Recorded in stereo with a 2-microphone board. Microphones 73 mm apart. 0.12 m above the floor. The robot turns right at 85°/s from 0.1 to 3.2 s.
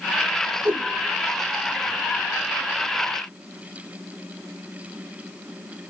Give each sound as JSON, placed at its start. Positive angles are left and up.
{"t": 0.7, "sound": "a whoosh", "side_deg": -30, "distance_m": 0.9}